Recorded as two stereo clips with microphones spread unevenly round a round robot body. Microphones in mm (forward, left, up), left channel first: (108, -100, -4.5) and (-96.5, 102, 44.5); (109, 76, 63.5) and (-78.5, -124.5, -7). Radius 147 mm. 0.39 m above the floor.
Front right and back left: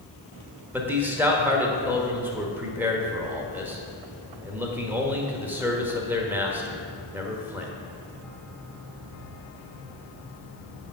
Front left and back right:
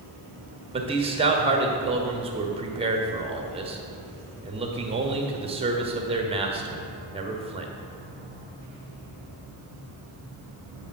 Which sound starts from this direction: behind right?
A man speaking, at 0.7 s.